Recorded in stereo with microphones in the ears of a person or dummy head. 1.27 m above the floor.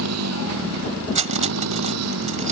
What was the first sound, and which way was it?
A motorcycle, 85° right.